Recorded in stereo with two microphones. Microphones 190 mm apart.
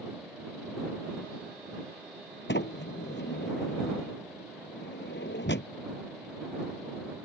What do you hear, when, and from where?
2.5 s a sliding door: 75° left (ahead or behind)